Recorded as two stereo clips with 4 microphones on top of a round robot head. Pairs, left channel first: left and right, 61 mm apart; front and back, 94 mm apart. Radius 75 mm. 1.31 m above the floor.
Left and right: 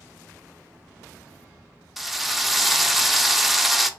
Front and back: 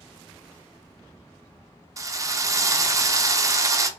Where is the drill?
175° right, 0.5 m.